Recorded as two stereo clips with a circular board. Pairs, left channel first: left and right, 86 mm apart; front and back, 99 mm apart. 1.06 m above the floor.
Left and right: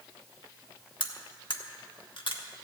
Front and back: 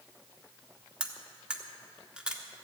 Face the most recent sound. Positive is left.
turn(degrees=100)